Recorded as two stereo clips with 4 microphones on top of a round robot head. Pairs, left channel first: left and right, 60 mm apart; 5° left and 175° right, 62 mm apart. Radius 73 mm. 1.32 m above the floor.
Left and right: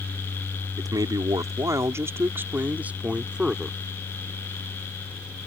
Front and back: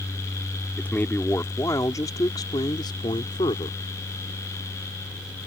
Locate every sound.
0.8 s a man speaking: 70° right; by 3.8 s 10° right